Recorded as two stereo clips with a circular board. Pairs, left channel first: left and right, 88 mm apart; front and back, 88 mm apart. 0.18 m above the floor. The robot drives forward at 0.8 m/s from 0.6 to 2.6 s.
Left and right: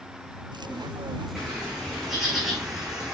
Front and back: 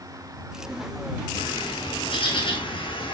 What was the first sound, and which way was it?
A bird, 5° right.